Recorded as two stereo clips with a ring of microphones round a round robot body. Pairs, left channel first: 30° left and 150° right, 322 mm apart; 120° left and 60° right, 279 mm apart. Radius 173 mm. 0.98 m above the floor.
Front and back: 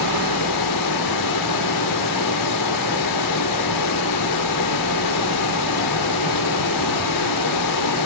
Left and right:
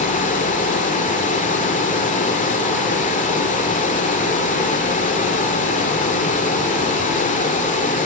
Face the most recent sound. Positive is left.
turn(degrees=55)